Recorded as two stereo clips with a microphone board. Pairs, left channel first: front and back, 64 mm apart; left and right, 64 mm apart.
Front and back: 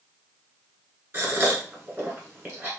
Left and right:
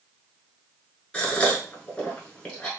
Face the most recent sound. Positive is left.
turn(degrees=155)